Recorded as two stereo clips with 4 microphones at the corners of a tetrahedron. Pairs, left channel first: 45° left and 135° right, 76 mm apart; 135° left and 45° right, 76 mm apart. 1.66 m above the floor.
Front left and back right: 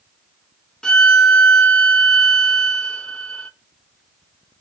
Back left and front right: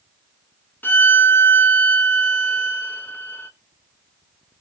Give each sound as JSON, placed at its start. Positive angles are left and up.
{"t": 0.8, "sound": "a violin", "azimuth_deg": 110, "distance_m": 0.8}